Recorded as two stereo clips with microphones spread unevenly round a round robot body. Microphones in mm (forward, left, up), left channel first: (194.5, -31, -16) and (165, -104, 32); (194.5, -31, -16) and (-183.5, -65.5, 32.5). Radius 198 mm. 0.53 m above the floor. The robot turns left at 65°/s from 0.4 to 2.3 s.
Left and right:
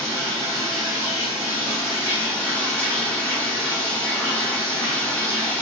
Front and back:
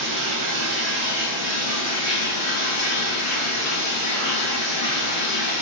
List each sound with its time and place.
0.0 s running water: 145° left, 1.6 m; by 5.6 s 25° left, 1.6 m